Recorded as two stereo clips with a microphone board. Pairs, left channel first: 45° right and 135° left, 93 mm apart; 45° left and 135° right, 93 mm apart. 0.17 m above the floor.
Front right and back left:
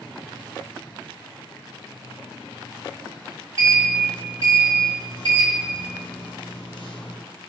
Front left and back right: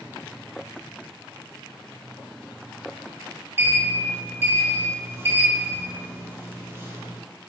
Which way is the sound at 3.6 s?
75° right.